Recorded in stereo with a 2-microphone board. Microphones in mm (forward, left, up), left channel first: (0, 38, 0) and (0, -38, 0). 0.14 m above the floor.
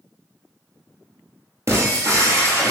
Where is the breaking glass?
40° right (ahead or behind), 1.0 m.